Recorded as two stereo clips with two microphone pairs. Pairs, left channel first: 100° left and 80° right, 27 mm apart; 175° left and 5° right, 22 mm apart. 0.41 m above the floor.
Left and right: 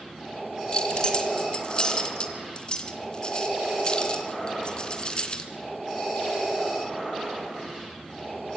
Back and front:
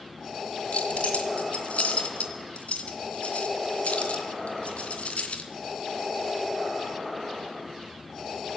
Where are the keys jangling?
160° left, 3 m.